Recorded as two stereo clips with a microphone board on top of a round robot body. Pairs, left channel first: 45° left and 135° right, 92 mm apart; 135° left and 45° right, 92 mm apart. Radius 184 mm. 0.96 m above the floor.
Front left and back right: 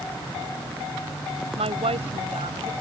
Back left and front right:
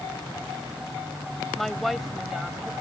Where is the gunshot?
I don't hear a gunshot.